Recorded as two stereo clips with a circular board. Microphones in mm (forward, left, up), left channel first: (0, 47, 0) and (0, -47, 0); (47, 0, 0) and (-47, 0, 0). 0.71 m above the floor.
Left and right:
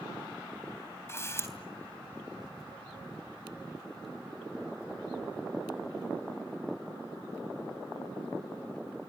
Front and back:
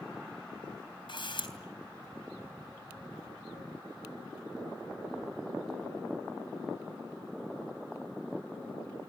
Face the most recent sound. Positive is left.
turn(degrees=30)